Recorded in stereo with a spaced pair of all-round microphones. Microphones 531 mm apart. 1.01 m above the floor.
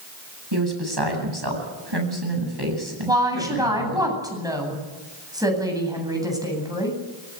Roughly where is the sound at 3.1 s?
Centre.